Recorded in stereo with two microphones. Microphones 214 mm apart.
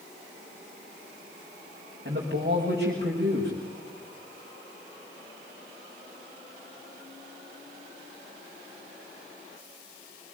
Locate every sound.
2.0 s a man speaking: 50° right (ahead or behind), 6 m